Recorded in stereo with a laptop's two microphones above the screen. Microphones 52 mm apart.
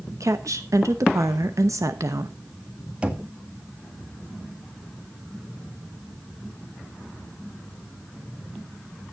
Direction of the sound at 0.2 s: 85° right.